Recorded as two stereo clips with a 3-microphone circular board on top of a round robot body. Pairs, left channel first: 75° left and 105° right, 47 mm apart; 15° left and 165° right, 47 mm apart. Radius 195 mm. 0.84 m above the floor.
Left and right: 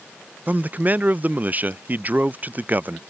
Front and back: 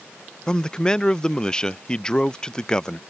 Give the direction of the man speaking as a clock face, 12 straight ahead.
2 o'clock.